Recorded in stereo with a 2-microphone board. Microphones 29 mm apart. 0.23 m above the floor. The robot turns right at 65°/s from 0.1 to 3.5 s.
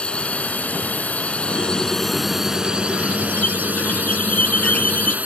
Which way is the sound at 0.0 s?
40° left.